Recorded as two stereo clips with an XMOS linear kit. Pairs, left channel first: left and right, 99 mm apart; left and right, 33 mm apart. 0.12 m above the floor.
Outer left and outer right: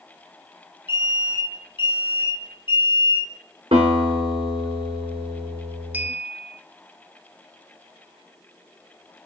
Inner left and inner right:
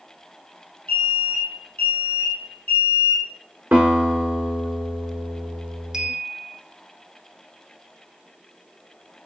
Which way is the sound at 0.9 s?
55° left (ahead or behind).